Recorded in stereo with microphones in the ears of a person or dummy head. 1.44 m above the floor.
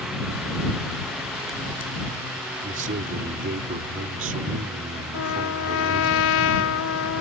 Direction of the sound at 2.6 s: 40° right (ahead or behind).